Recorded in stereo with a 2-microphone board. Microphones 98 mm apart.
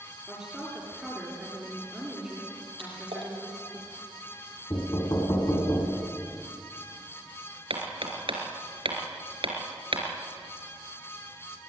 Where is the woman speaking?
10° right (ahead or behind), 7.5 m.